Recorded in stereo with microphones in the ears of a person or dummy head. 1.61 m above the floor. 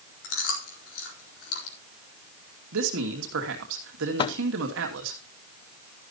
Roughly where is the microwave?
Left.